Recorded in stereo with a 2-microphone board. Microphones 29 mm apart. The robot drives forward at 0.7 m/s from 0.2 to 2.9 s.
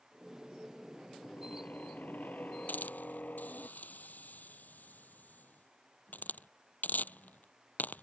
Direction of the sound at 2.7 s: 75° left (ahead or behind).